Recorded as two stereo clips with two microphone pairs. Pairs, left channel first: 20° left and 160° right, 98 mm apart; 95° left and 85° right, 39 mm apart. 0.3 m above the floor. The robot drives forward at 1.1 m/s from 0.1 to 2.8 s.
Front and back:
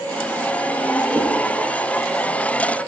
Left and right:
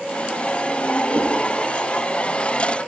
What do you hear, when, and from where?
1.1 s a whoosh: 90° right, 6 m; by 1.3 s 95° right, 6 m